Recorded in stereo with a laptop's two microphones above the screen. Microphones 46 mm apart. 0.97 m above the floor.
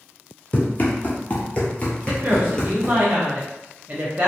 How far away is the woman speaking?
About 0.5 m.